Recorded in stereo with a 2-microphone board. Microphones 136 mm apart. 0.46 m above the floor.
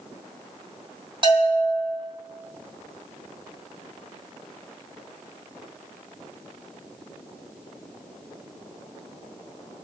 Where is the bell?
40° right (ahead or behind), 3 m.